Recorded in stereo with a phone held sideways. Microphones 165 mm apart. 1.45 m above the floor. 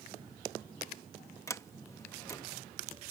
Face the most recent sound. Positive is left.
turn(degrees=20)  # may be behind; listen again after turning